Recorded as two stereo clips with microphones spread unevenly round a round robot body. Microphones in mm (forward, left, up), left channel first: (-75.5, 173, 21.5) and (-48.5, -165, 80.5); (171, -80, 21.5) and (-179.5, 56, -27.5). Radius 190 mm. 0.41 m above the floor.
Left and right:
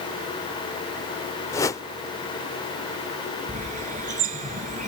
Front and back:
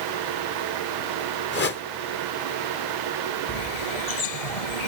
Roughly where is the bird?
Ahead.